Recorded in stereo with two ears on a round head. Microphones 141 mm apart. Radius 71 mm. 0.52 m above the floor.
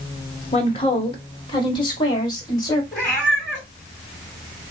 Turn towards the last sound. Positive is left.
turn(degrees=15)  # may be behind; listen again after turning